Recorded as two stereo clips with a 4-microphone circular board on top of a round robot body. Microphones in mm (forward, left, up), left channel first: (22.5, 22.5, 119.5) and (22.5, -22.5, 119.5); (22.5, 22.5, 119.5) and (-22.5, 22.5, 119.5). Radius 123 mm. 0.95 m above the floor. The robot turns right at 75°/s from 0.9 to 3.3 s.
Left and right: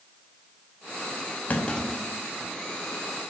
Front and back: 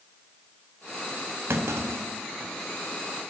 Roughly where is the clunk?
Behind left.